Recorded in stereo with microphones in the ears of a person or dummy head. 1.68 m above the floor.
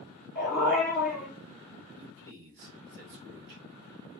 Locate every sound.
0.3 s a dog barking: 10° right (ahead or behind), 1.7 m
2.0 s a man speaking: 45° right (ahead or behind), 0.8 m